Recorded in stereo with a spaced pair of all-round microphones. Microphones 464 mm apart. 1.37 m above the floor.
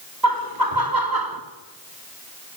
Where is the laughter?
45° right (ahead or behind), 3.5 m.